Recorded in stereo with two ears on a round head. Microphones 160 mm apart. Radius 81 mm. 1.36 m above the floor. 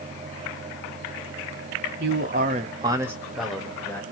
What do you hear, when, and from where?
2.0 s a man speaking: 60° right (ahead or behind), 0.7 m; by 4.0 s 10° left (ahead or behind), 1.4 m